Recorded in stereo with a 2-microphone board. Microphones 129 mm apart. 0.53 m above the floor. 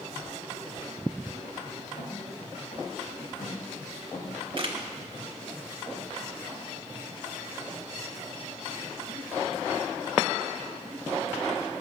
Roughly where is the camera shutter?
Right.